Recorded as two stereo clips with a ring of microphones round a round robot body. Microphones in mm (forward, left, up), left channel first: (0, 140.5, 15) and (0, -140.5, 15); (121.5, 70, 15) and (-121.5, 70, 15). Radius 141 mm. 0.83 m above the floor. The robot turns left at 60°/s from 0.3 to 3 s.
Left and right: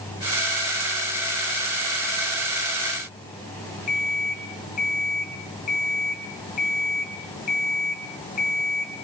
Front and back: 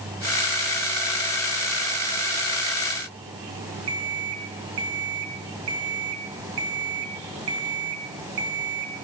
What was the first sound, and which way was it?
An alarm clock, 155° left.